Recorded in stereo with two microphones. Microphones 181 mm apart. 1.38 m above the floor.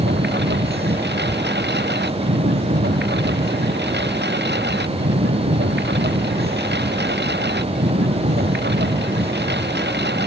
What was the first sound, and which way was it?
A lawn mower, 75° right (ahead or behind).